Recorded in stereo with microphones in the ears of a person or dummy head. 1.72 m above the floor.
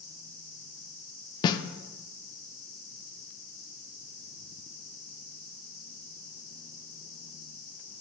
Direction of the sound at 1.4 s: 30° left (ahead or behind).